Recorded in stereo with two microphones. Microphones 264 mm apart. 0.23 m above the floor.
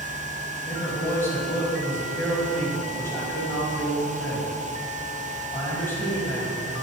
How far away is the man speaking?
About 1.6 m.